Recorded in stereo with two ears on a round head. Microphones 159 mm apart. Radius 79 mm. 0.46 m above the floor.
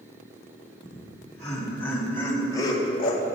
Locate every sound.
0.8 s laughter: centre (ahead or behind), 3.5 m; by 3.2 s 40° left (ahead or behind), 1.4 m